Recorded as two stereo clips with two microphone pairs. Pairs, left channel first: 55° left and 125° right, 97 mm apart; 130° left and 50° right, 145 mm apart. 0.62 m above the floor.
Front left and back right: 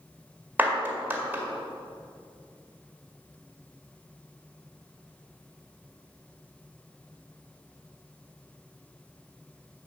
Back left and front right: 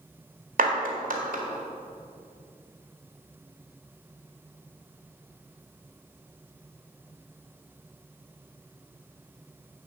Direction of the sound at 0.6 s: 55° right.